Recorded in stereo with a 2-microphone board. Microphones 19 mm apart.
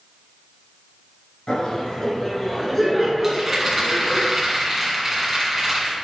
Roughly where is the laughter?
Left.